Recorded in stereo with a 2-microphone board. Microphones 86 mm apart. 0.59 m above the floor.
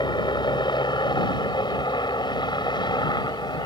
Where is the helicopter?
60° left (ahead or behind).